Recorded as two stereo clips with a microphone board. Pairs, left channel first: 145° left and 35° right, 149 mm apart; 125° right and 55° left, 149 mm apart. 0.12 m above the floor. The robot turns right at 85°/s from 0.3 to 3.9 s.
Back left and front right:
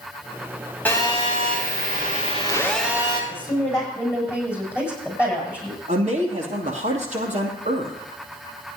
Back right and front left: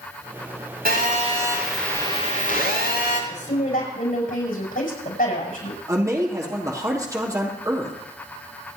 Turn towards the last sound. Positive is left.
turn(degrees=-10)